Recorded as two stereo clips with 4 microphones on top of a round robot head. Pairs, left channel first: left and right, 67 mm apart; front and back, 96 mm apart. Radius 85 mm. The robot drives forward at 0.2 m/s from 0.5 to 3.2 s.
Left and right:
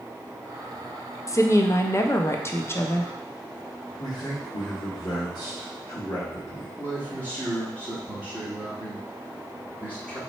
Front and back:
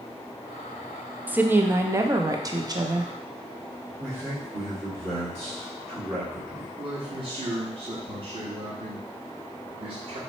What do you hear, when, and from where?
1.3 s a woman speaking: 110° left, 0.6 m; by 3.1 s 140° left, 0.8 m
4.0 s a man speaking: 115° left, 2.0 m
6.8 s a man speaking: 160° left, 1.5 m